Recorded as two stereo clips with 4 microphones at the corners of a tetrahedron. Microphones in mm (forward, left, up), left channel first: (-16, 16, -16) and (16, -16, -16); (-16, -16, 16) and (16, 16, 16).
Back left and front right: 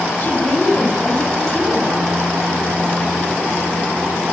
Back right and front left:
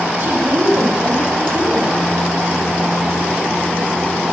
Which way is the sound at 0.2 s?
85° left.